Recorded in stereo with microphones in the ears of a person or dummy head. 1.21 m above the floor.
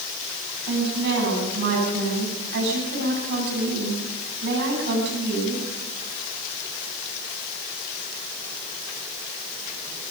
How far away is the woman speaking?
About 9.5 m.